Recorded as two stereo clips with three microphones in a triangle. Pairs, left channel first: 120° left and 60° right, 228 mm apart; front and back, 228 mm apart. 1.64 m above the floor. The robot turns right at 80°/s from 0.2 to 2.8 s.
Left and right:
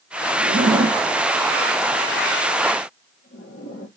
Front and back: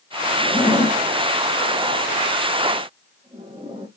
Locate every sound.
0.4 s a zipper: 80° right, 0.9 m; by 3.9 s 110° left, 0.9 m